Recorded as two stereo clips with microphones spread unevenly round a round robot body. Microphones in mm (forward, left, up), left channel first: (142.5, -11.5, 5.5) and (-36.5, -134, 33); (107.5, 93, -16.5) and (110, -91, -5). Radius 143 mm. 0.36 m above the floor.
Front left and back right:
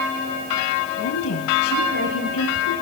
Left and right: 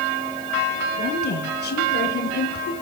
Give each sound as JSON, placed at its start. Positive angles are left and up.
{"t": 1.0, "sound": "a woman speaking", "azimuth_deg": 60, "distance_m": 7.0}